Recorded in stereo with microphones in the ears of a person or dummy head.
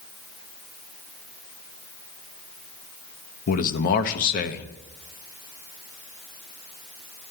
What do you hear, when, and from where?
3.5 s a man speaking: 50° left (ahead or behind), 1.0 m